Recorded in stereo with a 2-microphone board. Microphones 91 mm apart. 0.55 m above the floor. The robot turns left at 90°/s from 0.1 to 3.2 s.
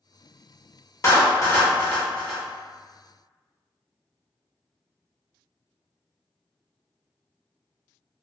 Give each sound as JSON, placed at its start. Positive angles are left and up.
{"t": 1.0, "sound": "a clap", "side_deg": 35, "distance_m": 0.9}